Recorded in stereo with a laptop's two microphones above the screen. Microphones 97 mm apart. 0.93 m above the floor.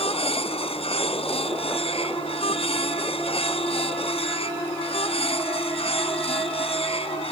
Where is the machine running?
85° left.